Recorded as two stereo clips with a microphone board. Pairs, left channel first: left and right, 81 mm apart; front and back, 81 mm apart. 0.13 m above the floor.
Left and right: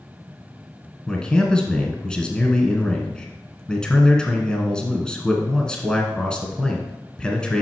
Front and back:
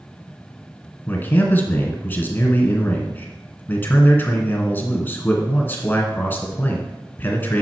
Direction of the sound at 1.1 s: 25° left.